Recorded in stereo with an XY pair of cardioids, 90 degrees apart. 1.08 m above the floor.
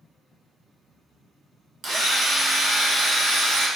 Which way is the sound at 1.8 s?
60° right.